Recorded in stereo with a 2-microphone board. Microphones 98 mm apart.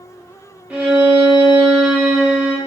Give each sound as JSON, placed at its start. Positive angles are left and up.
{"t": 0.7, "sound": "a violin", "side_deg": -15, "distance_m": 0.7}